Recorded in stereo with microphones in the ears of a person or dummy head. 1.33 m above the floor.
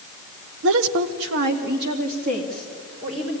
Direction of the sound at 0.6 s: 70° right (ahead or behind).